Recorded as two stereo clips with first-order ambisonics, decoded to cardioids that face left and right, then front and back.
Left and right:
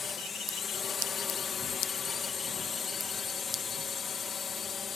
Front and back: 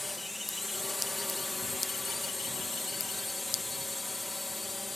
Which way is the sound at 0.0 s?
70° left.